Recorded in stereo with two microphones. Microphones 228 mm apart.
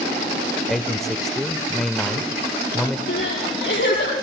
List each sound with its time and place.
0.7 s a man speaking: centre (ahead or behind), 0.9 m
3.1 s crying: 60° left (ahead or behind), 9 m